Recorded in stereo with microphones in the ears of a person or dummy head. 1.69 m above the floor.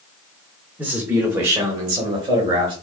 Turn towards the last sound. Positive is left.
turn(degrees=-25)  # may be behind; listen again after turning